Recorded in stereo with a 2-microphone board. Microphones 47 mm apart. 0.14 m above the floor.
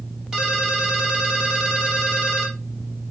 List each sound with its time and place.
0.3 s a ringtone: 15° right (ahead or behind), 3 m